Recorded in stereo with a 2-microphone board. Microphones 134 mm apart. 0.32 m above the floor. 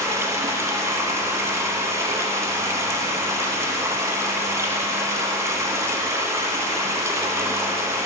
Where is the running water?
20° right (ahead or behind), 0.9 m.